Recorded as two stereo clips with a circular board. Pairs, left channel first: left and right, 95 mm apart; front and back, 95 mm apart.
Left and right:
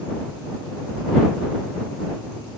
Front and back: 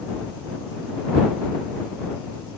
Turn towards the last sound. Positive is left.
No sound to turn to.